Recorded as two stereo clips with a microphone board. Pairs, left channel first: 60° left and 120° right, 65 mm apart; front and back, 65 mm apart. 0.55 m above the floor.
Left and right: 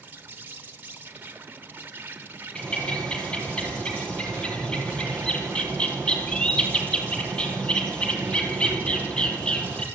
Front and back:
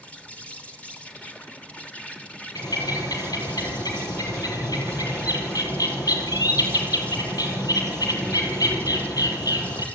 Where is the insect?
65° right, 1.6 m.